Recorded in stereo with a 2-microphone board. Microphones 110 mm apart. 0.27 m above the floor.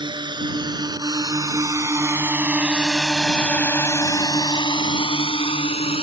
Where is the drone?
45° right (ahead or behind); by 6.0 s 65° left (ahead or behind).